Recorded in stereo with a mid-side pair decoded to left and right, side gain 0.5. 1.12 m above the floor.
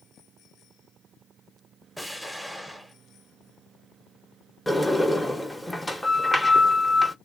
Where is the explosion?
Straight ahead, 0.9 m.